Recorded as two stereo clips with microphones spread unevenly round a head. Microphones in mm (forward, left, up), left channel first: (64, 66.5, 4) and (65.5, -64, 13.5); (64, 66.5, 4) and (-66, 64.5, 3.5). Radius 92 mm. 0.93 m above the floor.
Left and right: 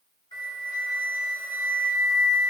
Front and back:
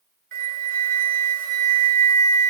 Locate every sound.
0.3 s a flute: 160° left, 1.3 m